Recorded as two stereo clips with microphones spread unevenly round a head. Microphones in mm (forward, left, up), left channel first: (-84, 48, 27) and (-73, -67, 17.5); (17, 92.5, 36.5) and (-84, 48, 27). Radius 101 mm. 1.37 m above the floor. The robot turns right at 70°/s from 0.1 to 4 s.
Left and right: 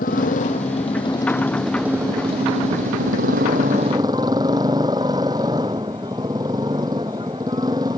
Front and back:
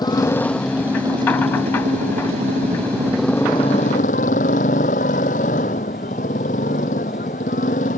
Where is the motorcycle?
75° left; by 8.0 s 10° right.